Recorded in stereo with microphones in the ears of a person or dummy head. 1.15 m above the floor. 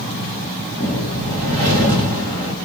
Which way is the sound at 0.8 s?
40° right (ahead or behind).